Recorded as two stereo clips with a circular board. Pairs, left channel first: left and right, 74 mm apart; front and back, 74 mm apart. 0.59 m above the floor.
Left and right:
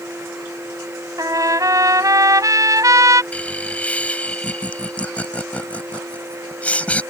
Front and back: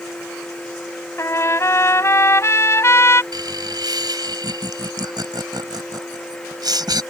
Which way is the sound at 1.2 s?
50° right.